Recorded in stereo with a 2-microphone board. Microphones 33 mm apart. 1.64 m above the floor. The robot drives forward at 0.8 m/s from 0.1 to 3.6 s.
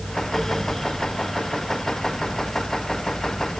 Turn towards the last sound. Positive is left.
No sound to turn to.